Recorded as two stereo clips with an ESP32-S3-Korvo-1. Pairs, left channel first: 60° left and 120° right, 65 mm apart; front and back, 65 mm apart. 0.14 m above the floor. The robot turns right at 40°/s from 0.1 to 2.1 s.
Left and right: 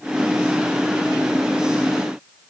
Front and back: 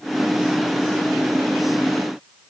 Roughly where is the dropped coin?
No dropped coin in this recording.